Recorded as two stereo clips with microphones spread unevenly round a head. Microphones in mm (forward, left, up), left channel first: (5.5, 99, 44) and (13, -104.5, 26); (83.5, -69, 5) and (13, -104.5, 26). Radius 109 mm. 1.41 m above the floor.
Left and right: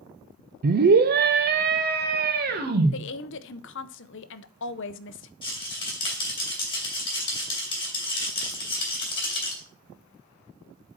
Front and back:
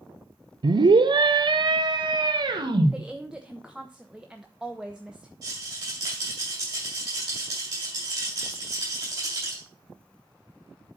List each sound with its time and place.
0.6 s a scream: 120° right, 0.6 m; by 2.9 s 130° right, 1.9 m
2.9 s a woman speaking: 125° left, 0.6 m
5.4 s a rattle: 155° left, 2.5 m